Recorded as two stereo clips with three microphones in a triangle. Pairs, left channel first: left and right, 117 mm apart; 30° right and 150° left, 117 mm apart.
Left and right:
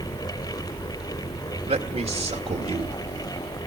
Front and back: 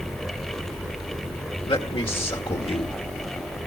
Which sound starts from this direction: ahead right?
A man speaking, at 1.7 s.